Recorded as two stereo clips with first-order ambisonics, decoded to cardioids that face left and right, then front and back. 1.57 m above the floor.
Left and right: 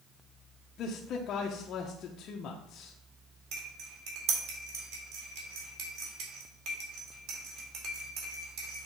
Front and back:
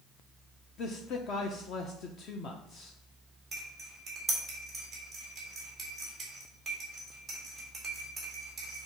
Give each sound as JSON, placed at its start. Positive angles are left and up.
{"t": 0.8, "sound": "a man speaking", "azimuth_deg": 45, "distance_m": 0.7}
{"t": 3.5, "sound": "cutlery clinking", "azimuth_deg": -105, "distance_m": 2.0}